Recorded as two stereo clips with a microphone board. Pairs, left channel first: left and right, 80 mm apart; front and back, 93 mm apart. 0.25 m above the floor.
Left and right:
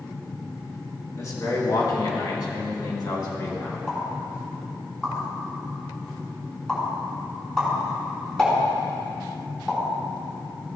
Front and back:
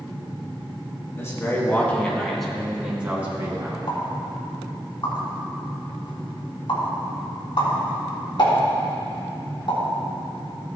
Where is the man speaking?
50° left, 2 m; by 3.8 s 120° left, 2.5 m.